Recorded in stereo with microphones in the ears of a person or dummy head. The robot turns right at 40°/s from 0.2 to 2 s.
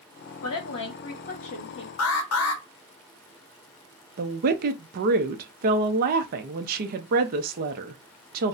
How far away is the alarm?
About 0.8 m.